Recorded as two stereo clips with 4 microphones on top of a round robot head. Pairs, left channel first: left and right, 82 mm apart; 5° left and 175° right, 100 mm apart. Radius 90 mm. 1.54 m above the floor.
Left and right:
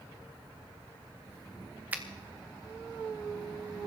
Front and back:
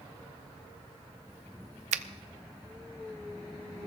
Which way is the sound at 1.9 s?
165° right.